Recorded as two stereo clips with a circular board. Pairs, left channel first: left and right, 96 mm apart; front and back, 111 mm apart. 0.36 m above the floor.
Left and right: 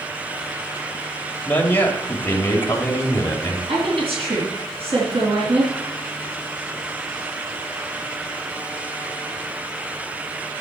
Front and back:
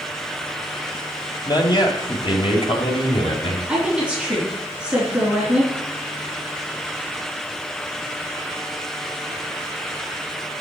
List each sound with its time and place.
1.4 s a man speaking: 25° left, 1.7 m; by 3.6 s 30° left, 2.5 m
3.7 s a woman speaking: 100° right, 3.5 m